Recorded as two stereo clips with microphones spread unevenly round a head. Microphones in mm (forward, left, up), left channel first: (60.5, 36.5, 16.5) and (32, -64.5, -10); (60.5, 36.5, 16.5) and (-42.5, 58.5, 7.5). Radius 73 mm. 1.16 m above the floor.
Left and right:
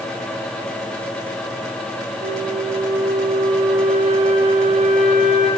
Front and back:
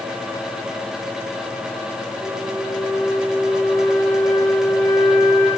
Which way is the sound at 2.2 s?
90° right.